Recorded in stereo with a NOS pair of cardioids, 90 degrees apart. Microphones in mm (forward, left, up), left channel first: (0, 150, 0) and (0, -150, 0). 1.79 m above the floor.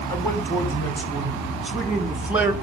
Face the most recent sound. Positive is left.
turn(degrees=-5)